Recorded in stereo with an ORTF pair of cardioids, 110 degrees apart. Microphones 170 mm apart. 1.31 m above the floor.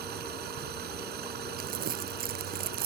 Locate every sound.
0.0 s running water: 70° right
1.6 s crumpling: 60° right